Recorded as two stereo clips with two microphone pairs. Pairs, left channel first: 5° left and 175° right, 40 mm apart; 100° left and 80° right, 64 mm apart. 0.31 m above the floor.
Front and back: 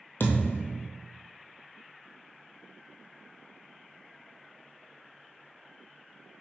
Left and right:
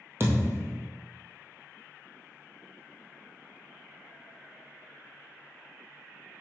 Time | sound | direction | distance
0.2 | a thud | 25° right | 1.5 m